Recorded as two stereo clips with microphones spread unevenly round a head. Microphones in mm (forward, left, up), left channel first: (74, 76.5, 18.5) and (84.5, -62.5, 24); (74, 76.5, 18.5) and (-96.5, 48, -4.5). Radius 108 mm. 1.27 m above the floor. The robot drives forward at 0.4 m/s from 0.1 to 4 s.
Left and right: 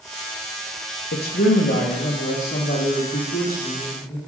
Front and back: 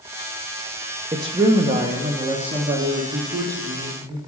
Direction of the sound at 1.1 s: 120° left.